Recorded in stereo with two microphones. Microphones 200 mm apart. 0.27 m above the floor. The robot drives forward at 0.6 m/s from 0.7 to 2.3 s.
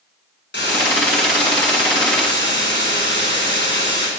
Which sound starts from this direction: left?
A hiss, at 0.5 s.